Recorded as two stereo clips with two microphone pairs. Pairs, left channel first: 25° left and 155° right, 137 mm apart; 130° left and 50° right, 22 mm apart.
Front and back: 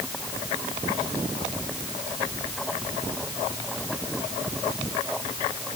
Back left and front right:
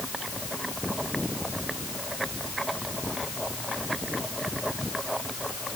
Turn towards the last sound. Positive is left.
No sound to turn to.